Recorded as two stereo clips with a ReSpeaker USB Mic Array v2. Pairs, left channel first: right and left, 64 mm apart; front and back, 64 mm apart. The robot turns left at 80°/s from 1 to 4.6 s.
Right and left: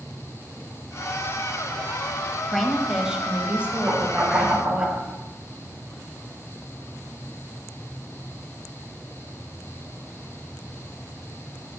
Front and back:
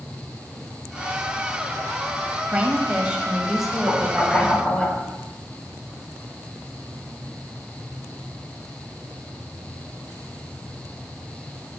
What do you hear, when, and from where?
2.5 s a woman speaking: 165° right, 0.9 m; by 4.9 s 25° left, 0.9 m
3.9 s knocking: 170° left, 2.5 m; by 5.0 s 110° left, 2.5 m